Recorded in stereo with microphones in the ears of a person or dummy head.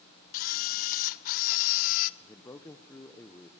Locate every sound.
0.3 s a camera shutter: 45° left (ahead or behind), 0.6 m
2.2 s a man speaking: 15° left (ahead or behind), 0.9 m